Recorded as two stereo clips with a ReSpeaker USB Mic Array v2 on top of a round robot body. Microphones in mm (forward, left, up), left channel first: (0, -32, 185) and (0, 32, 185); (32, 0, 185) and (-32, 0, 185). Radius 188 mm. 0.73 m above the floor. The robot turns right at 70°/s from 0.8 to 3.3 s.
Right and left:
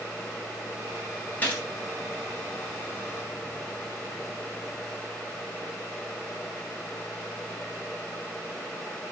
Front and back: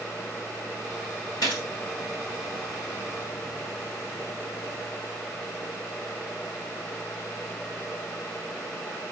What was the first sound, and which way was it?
A gunshot, 25° right.